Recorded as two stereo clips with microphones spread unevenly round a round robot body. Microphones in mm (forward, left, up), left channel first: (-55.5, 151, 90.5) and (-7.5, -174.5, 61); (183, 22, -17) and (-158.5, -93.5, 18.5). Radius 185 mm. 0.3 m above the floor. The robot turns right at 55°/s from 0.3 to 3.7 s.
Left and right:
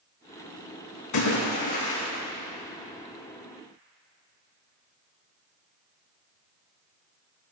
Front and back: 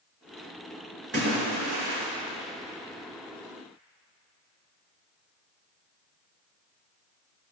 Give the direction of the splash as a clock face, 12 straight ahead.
8 o'clock.